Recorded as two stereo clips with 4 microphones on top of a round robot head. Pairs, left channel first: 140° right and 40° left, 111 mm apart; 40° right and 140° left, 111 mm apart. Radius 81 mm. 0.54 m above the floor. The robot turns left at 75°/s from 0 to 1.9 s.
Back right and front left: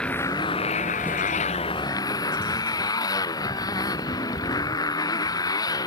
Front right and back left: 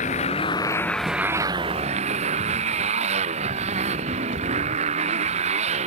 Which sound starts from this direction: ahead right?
A motorcycle, at 0.0 s.